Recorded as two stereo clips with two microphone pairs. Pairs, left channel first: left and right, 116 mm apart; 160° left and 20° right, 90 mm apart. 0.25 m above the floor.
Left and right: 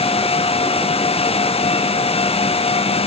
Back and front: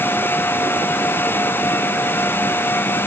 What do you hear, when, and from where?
Only background noise.